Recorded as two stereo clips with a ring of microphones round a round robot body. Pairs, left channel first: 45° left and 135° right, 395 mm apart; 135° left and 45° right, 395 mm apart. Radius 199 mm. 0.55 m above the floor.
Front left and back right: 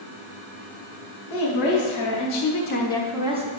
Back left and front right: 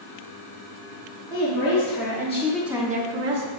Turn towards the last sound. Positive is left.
turn(degrees=-70)